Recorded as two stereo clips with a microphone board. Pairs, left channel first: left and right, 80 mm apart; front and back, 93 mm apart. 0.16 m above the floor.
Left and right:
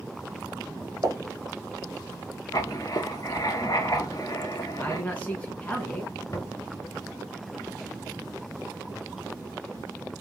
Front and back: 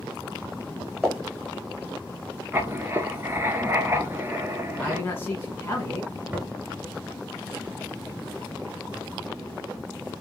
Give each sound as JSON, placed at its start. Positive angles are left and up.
{"t": 1.0, "sound": "a pop", "azimuth_deg": -90, "distance_m": 1.5}
{"t": 2.5, "sound": "writing", "azimuth_deg": 120, "distance_m": 0.7}
{"t": 4.8, "sound": "a man speaking", "azimuth_deg": 40, "distance_m": 1.1}
{"t": 6.3, "sound": "knocking", "azimuth_deg": 115, "distance_m": 1.4}